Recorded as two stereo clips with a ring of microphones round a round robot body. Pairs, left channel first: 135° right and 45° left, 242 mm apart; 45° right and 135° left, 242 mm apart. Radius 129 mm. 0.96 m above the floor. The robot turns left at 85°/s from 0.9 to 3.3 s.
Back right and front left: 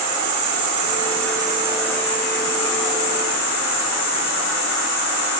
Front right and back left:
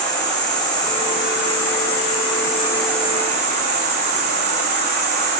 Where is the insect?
30° left, 4 m; by 5.4 s 175° right, 4 m.